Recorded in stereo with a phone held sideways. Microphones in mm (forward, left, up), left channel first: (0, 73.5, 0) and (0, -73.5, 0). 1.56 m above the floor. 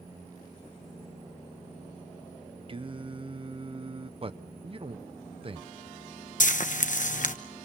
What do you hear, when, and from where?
2.7 s singing: 35° right (ahead or behind), 0.7 m
4.2 s a man speaking: 40° right (ahead or behind), 0.7 m
6.4 s frying: 60° left (ahead or behind), 1.0 m